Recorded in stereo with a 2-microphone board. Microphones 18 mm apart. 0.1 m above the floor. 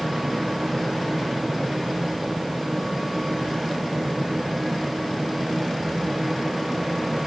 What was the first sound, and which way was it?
Only background noise.